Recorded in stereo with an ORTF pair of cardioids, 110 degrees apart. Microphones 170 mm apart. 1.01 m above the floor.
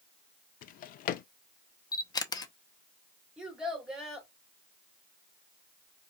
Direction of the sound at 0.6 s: 60° left.